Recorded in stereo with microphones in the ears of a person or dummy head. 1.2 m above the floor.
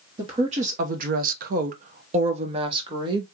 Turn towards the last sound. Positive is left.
turn(degrees=-25)  # may be behind; listen again after turning